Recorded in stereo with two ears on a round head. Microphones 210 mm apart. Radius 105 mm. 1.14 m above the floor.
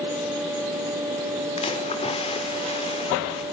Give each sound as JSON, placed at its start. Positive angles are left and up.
{"t": 1.6, "sound": "a splash", "side_deg": 25, "distance_m": 4.5}